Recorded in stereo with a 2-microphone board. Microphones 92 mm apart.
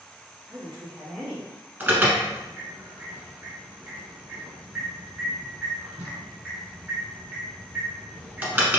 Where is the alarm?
20° right (ahead or behind), 1.2 m.